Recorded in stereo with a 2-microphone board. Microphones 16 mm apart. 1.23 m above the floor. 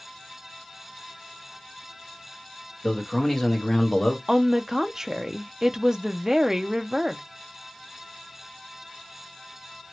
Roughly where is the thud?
No thud in this recording.